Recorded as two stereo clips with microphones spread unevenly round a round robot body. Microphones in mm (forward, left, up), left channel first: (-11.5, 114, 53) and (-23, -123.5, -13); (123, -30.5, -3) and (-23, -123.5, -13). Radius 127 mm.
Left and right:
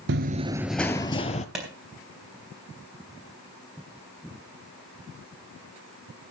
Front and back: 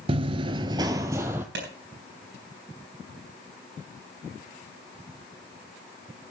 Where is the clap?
175° right, 3.5 m.